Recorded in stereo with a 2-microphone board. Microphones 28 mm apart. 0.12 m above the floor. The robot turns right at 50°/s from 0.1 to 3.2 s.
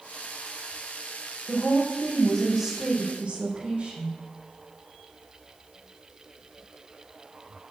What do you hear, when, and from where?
1.5 s a woman speaking: 135° left, 5 m; by 4.1 s 140° right, 5 m